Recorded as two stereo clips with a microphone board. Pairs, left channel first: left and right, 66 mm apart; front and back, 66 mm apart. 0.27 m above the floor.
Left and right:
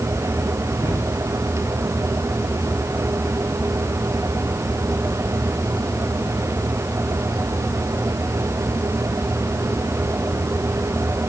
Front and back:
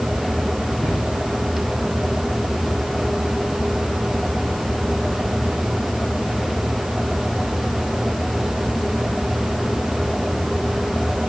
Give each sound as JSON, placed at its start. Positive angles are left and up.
{"t": 0.8, "sound": "a cupboard door", "azimuth_deg": -120, "distance_m": 3.5}